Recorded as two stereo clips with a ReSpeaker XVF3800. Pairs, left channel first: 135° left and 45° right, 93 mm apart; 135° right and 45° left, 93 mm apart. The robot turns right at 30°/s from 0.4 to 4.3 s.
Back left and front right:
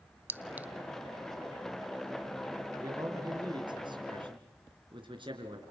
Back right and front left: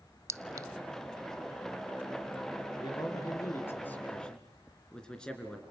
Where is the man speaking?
100° right, 3 m; by 5.6 s 55° right, 3 m.